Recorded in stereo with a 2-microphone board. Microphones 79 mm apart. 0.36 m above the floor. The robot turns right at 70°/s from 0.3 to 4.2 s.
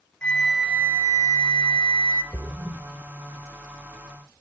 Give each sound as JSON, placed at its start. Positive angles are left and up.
{"t": 0.2, "sound": "a flute", "azimuth_deg": 165, "distance_m": 0.6}
{"t": 2.3, "sound": "a splash", "side_deg": -25, "distance_m": 0.5}